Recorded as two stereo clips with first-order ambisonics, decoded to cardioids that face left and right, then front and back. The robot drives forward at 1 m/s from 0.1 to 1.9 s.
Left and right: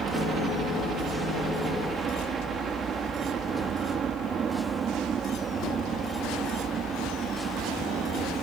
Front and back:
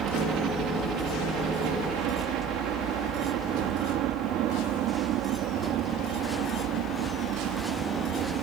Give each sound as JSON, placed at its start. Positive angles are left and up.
{"t": 0.0, "sound": "a helicopter", "azimuth_deg": -145}